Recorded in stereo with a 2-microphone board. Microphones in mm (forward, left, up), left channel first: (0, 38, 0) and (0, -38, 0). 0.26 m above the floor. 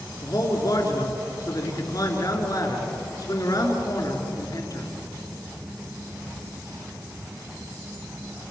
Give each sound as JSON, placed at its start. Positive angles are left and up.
{"t": 0.2, "sound": "a man speaking", "side_deg": 50, "distance_m": 4.5}